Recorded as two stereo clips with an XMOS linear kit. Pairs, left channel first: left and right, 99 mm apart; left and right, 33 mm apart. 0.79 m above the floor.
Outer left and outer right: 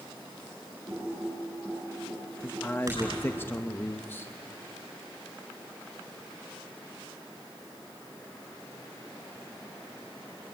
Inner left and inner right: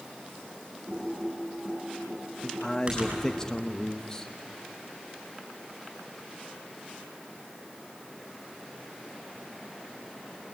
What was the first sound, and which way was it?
Typing on a keyboard, 30° right (ahead or behind).